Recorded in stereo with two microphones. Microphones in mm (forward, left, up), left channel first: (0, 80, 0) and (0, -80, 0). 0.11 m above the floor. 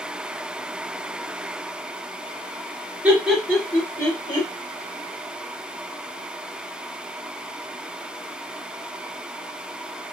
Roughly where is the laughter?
Centre.